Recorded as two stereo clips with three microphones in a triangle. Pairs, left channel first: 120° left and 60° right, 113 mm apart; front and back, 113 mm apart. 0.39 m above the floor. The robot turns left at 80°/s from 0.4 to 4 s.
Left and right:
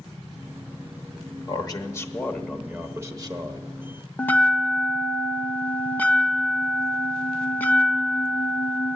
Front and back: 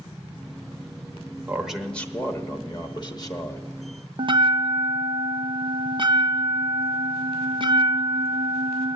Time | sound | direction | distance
1.5 | a man speaking | 115° left | 0.9 m
4.2 | a bell | 170° right | 0.5 m